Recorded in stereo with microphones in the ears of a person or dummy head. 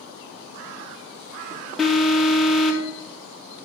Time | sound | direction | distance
1.8 | an alarm | 5° left (ahead or behind) | 1.5 m